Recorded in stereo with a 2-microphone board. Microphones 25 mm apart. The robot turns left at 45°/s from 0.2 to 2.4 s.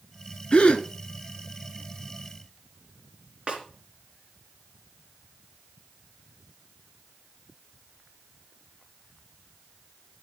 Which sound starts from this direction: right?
A snare drum, at 3.5 s.